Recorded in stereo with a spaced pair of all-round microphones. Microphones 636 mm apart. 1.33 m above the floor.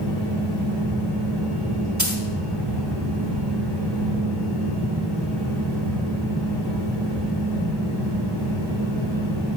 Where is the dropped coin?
30° right (ahead or behind), 1.7 m.